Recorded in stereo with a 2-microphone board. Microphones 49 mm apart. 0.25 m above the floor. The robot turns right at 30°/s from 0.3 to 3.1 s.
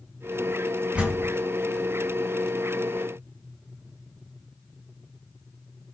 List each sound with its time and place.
0.9 s a door slam: 25° right (ahead or behind), 1.2 m; by 1.3 s 35° right (ahead or behind), 1.2 m